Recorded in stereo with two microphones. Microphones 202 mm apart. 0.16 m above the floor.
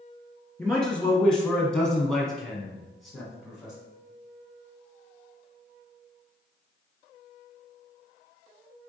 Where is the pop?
I don't hear a pop.